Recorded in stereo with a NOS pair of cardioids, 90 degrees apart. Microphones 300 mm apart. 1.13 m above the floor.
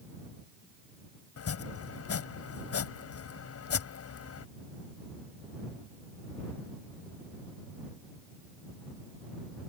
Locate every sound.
1.4 s chopping: 50° left